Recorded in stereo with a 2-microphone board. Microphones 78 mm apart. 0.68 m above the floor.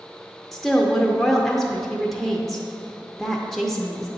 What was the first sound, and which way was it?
A woman speaking, centre (ahead or behind).